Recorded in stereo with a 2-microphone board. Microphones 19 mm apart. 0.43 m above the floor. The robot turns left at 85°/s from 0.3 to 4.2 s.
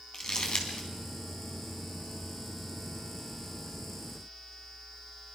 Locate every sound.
0.1 s crumpling: 40° left (ahead or behind), 4 m; by 0.9 s 75° left (ahead or behind), 4 m